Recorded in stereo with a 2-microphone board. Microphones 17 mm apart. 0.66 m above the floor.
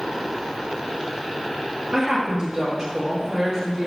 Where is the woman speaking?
20° right (ahead or behind), 0.7 m.